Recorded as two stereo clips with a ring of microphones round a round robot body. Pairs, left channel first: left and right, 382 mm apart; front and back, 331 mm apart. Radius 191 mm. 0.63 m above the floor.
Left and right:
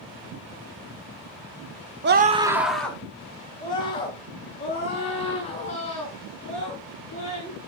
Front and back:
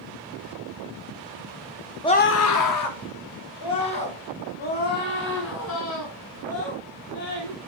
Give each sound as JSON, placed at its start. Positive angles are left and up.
{"t": 2.0, "sound": "a scream", "azimuth_deg": -70, "distance_m": 0.8}